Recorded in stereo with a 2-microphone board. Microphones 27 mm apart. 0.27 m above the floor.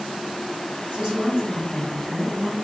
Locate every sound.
0.9 s a woman speaking: 50° right (ahead or behind), 1.6 m; by 2.5 s 30° left (ahead or behind), 1.2 m